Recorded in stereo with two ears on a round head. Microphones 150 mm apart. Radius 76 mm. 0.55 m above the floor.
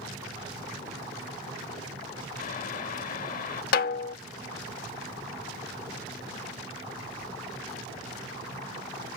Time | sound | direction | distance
2.4 | boiling | 50° left (ahead or behind) | ?
3.7 | a snare drum | 60° left (ahead or behind) | ?